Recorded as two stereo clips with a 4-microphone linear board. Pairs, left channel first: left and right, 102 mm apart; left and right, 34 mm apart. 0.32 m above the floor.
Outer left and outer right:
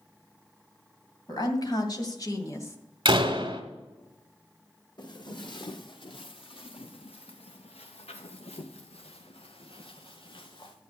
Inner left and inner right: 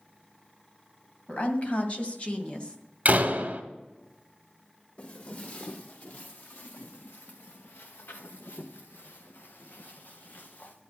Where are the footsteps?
45° left (ahead or behind), 2.5 m; by 10.8 s 50° left (ahead or behind), 2.5 m.